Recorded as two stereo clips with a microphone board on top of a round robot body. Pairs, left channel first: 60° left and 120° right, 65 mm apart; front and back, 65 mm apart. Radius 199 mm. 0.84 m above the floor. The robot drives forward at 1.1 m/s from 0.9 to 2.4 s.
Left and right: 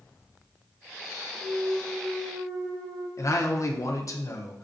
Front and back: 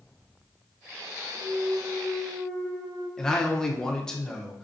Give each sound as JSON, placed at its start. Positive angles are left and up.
{"t": 1.3, "sound": "a clunk", "azimuth_deg": -130, "distance_m": 2.5}
{"t": 3.2, "sound": "a man speaking", "azimuth_deg": 80, "distance_m": 0.9}